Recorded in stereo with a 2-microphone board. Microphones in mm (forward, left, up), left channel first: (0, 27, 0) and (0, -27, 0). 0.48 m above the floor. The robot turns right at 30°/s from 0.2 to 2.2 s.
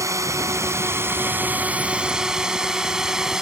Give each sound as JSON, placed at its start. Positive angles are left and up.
{"t": 0.0, "sound": "a drone", "side_deg": -70}